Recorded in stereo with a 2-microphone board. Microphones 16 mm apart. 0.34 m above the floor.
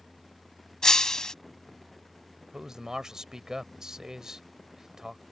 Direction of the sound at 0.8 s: 50° left (ahead or behind).